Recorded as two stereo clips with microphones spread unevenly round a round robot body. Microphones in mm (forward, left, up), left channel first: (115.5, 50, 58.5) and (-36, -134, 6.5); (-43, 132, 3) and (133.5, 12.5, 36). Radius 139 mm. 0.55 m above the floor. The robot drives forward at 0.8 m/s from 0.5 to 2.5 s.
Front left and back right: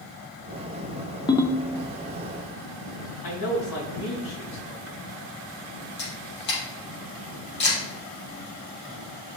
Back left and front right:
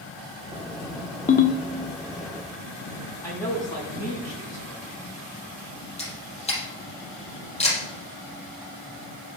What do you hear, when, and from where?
1.3 s a ringtone: 130° left, 0.7 m; by 1.7 s 150° left, 0.9 m
3.2 s a man speaking: 70° left, 4.5 m
6.0 s a camera shutter: 85° left, 4 m